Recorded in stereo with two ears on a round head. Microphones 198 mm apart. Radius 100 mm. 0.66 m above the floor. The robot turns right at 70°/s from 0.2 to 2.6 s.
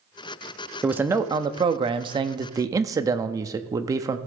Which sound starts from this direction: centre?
A man speaking, at 0.8 s.